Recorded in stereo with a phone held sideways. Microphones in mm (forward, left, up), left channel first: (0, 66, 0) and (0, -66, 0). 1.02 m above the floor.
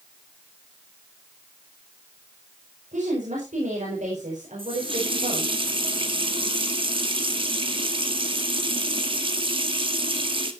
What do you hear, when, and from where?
2.9 s a woman speaking: 80° right, 5 m
4.6 s a running tap: 45° right (ahead or behind), 1.5 m